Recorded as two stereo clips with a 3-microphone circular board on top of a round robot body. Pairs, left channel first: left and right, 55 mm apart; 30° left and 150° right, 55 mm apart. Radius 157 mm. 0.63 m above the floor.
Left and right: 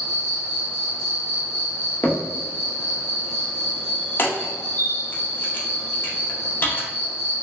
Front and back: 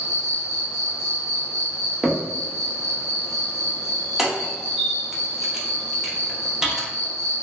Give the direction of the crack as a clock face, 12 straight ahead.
8 o'clock.